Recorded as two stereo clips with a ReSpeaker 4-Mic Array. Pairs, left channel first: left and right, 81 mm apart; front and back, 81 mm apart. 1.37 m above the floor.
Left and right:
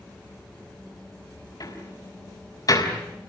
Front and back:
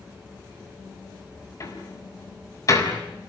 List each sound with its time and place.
1.6 s a door slam: 45° left, 5.5 m